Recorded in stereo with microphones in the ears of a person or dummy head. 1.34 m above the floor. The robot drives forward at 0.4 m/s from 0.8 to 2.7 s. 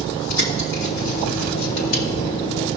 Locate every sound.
0.3 s a bird: 80° left, 3 m; by 2.0 s 85° left, 3 m